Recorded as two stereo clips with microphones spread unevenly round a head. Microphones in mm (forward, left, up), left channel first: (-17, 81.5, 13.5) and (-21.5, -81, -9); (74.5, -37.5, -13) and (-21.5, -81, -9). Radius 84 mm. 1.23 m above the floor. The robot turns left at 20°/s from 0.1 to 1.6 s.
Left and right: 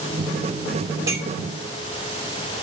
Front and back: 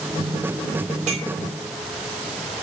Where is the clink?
165° right, 5.5 m; by 1.3 s 170° right, 5.5 m.